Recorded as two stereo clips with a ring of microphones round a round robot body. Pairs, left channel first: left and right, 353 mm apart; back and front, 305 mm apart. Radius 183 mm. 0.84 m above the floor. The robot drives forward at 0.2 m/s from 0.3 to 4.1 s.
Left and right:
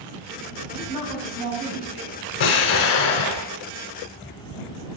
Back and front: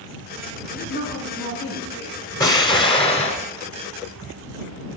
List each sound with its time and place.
0.7 s a woman speaking: 120° right, 7 m
2.4 s an explosion: 100° left, 1.3 m; by 3.5 s 110° left, 1.3 m